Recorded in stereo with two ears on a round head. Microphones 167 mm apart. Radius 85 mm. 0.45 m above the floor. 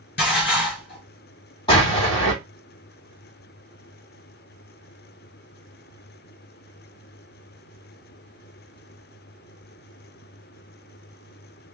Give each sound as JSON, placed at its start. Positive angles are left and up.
{"t": 0.2, "sound": "dishes clattering", "side_deg": 60, "distance_m": 3.0}
{"t": 1.7, "sound": "an explosion", "side_deg": 25, "distance_m": 3.0}